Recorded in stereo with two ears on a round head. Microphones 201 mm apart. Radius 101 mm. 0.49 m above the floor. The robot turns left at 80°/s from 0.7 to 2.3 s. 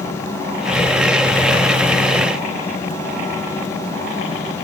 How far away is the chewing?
No chewing in this recording.